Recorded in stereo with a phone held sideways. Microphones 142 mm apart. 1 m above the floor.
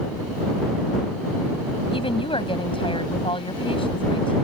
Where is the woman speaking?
40° left (ahead or behind).